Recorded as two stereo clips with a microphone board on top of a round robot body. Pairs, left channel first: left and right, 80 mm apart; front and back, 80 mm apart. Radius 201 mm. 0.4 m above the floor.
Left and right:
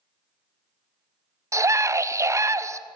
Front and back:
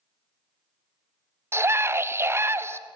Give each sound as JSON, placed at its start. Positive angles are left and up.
{"t": 1.5, "sound": "a scream", "azimuth_deg": -130, "distance_m": 1.9}